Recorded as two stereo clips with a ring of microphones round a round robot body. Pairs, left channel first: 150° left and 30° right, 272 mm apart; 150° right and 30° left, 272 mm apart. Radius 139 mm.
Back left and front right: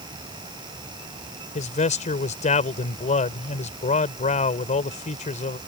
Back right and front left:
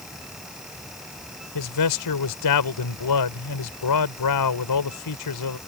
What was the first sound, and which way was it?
A man speaking, 145° right.